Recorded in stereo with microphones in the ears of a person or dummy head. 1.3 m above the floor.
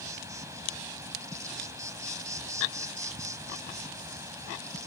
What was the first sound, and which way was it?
An insect, 15° right (ahead or behind).